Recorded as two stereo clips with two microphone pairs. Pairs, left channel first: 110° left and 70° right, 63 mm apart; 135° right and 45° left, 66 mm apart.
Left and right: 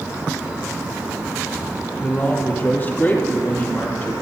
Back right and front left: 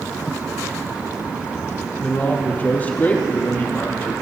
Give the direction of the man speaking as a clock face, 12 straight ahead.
6 o'clock.